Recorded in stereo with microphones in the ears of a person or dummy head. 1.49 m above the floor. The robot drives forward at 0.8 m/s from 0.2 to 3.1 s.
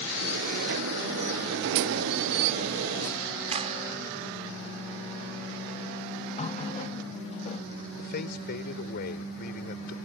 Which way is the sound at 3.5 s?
35° right (ahead or behind).